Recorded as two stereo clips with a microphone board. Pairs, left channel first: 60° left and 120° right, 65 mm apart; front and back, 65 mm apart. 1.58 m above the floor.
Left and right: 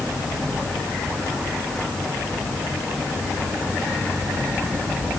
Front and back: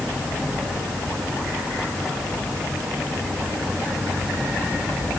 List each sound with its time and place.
Only background noise.